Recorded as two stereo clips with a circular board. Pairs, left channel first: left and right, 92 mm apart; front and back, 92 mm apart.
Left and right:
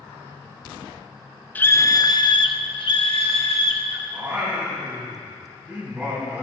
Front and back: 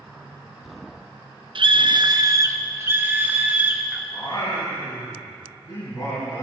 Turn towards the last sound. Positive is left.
turn(degrees=-15)